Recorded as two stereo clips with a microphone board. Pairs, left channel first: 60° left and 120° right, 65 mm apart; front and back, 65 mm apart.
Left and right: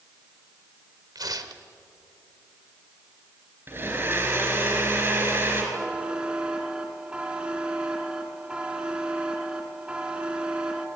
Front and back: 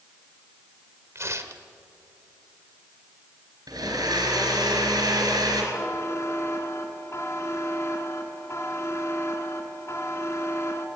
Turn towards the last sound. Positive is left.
turn(degrees=-45)